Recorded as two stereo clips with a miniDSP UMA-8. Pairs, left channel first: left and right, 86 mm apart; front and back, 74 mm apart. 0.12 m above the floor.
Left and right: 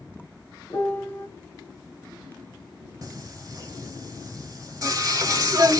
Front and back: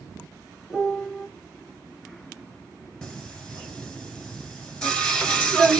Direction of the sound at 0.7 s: 90° left.